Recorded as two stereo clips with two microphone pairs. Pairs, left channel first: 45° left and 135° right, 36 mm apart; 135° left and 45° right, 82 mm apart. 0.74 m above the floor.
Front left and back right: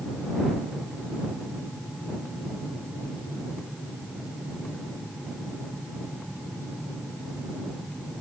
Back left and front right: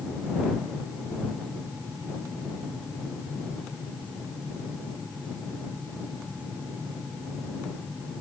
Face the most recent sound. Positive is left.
No sound to turn to.